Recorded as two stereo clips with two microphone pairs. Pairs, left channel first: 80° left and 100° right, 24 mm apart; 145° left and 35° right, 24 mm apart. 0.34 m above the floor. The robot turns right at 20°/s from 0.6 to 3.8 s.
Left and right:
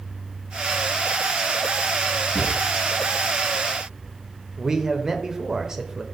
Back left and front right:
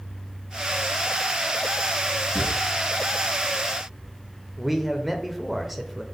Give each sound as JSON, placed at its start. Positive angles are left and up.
{"t": 2.4, "sound": "a drawer", "azimuth_deg": -130, "distance_m": 2.0}
{"t": 4.6, "sound": "a man speaking", "azimuth_deg": -120, "distance_m": 0.8}